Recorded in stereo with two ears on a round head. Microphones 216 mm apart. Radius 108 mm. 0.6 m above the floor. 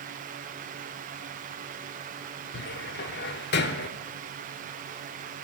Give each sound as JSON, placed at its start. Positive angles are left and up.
{"t": 2.5, "sound": "a cupboard door", "side_deg": 45, "distance_m": 0.7}